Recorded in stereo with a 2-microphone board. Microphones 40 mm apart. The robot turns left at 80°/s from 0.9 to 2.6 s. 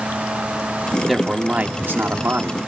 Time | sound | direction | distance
1.1 | a man speaking | straight ahead | 1.7 m